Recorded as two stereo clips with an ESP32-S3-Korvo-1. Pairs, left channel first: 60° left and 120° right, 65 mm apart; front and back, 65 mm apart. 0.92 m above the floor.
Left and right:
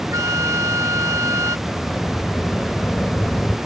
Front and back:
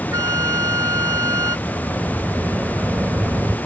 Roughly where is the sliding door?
Behind left.